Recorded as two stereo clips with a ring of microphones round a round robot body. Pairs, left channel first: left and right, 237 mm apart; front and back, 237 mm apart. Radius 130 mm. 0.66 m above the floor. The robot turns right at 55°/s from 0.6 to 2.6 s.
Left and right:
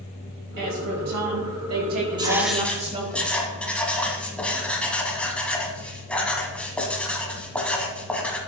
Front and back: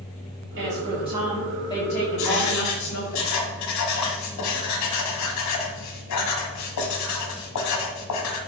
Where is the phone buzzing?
No phone buzzing in this recording.